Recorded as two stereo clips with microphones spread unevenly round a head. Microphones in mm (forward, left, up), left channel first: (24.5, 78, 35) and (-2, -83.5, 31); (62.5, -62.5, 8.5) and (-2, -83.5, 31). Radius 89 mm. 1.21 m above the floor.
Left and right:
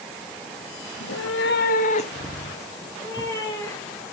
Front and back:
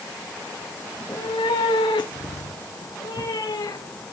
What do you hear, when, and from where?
0.9 s a cat meowing: 105° left, 1.1 m; by 4.0 s 5° left, 4 m